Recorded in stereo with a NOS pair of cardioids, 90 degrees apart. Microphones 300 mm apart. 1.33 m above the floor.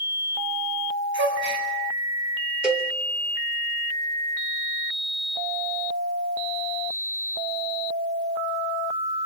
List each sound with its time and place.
1.1 s a gasp: 40° right, 8 m
2.6 s a cowbell: 5° right, 2.5 m